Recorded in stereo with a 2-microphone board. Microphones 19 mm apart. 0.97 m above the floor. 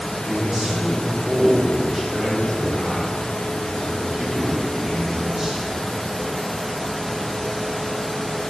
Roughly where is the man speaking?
Right.